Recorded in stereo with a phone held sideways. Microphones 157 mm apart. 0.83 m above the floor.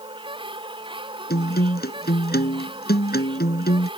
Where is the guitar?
85° left.